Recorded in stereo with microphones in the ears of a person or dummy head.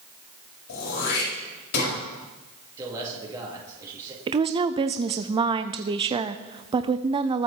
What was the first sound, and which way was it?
Throat clearing, 60° left (ahead or behind).